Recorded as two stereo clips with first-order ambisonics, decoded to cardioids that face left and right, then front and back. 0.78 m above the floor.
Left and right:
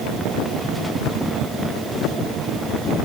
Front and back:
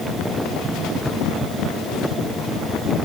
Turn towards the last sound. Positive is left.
No sound to turn to.